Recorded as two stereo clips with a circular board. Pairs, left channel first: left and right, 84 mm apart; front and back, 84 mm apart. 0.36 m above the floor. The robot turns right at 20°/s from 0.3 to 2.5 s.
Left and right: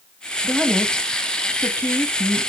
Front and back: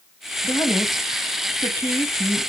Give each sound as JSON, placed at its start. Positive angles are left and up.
{"t": 0.4, "sound": "a woman speaking", "azimuth_deg": 5, "distance_m": 2.5}